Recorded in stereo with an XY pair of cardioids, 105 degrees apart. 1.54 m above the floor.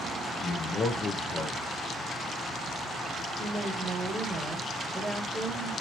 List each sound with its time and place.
0.4 s a man speaking: 50° left, 0.8 m
3.4 s a woman speaking: 25° right, 1.3 m